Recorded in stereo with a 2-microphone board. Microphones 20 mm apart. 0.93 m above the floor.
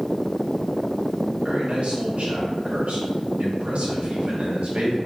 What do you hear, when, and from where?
1.4 s a man speaking: 65° right (ahead or behind), 1.7 m